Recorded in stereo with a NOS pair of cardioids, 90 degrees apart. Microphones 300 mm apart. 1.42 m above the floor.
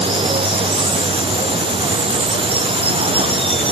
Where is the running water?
20° right.